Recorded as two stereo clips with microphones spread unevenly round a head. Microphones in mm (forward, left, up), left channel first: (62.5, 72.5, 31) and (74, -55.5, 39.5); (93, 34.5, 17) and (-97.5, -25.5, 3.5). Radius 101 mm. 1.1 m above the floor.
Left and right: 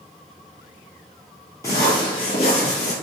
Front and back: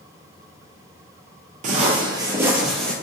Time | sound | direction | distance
1.6 | footsteps | 165° left | 1.3 m